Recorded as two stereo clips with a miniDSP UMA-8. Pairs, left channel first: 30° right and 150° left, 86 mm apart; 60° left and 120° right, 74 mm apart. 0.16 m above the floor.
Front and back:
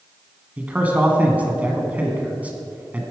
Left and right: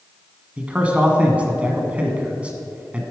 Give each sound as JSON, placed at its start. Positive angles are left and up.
{"t": 0.6, "sound": "a man speaking", "azimuth_deg": -165, "distance_m": 1.4}